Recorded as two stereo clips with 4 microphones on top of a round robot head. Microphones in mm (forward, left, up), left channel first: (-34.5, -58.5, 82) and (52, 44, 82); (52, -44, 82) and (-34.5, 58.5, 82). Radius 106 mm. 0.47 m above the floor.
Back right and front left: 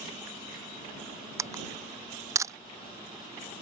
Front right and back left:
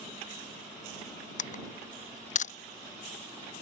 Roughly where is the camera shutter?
Ahead.